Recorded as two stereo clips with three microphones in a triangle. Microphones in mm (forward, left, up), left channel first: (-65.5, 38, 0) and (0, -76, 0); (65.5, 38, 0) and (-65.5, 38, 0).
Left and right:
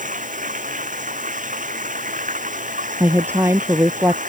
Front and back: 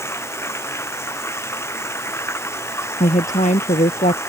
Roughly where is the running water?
Right.